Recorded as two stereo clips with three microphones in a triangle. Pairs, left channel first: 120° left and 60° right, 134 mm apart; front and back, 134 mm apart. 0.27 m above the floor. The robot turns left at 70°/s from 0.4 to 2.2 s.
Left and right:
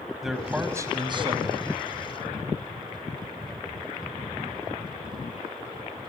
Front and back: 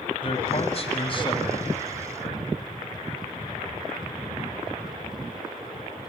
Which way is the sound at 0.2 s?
25° left.